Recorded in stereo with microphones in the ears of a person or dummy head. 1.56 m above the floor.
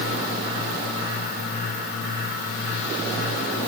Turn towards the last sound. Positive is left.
No sound to turn to.